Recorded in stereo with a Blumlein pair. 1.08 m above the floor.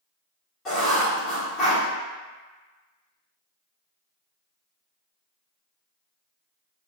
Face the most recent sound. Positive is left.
turn(degrees=30)